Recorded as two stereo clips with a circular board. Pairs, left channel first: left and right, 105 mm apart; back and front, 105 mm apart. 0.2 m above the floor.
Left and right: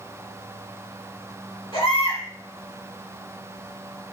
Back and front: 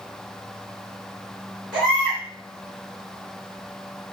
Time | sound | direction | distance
1.7 | a baby crying | 85° left | 2.5 m